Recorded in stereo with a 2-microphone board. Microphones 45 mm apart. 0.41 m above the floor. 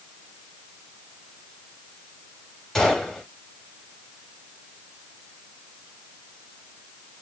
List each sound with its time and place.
2.8 s a gunshot: 10° left (ahead or behind), 1.8 m